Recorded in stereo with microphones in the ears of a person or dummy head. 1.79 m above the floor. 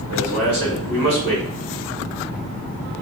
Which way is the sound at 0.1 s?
60° right (ahead or behind).